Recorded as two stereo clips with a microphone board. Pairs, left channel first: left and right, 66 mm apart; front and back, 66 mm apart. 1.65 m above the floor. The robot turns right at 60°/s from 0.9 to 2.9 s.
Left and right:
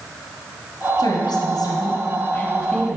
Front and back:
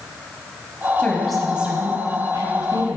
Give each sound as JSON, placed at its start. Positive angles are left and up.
{"t": 1.0, "sound": "a woman speaking", "azimuth_deg": 60, "distance_m": 0.9}